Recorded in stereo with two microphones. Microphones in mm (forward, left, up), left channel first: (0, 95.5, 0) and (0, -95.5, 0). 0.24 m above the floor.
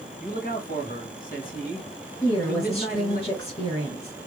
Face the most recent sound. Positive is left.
turn(degrees=30)  # may be behind; listen again after turning